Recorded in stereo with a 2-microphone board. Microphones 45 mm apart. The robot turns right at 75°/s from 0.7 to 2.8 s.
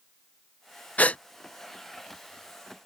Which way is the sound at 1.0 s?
35° left (ahead or behind).